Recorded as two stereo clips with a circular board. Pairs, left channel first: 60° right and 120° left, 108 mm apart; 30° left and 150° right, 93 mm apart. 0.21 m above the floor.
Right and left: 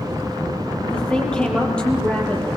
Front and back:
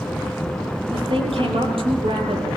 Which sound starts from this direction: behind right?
A woman speaking, at 0.9 s.